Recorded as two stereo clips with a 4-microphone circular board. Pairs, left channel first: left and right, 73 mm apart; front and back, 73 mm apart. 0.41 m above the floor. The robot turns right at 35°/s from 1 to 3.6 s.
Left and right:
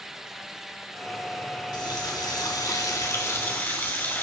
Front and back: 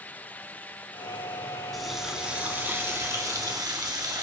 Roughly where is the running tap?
Left.